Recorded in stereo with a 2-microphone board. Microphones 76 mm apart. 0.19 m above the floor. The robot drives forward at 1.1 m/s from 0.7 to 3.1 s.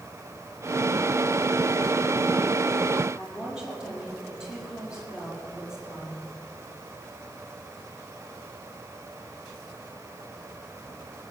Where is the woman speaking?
10° right (ahead or behind), 5.5 m.